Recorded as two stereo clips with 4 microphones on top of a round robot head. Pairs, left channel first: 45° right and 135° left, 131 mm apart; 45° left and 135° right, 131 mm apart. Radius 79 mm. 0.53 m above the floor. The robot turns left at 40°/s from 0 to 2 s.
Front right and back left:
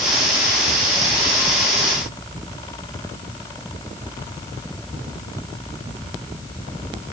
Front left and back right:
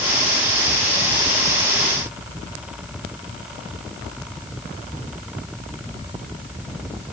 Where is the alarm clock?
No alarm clock in this recording.